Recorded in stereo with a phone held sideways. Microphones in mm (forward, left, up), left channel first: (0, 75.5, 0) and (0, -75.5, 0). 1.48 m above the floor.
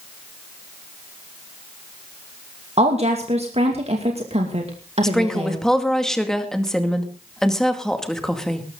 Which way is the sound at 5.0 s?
5° left (ahead or behind).